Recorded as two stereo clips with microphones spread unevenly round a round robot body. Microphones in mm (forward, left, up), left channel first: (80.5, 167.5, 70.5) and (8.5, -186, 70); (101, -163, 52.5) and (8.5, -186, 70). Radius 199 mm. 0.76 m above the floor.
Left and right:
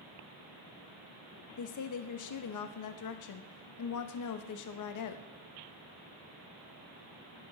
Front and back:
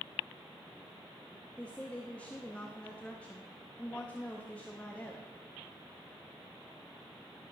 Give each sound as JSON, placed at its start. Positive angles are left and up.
{"t": 1.6, "sound": "a woman speaking", "azimuth_deg": 80, "distance_m": 0.7}